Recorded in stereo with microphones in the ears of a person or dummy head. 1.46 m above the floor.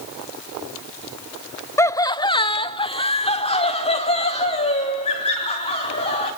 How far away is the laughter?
About 0.6 m.